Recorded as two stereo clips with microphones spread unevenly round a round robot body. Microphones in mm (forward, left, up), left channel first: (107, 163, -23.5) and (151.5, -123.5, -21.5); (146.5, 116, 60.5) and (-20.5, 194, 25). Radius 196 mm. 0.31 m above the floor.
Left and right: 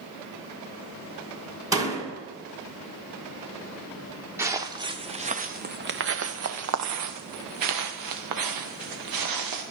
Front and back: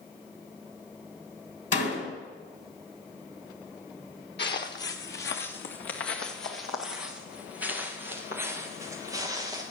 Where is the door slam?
5° right, 2.5 m.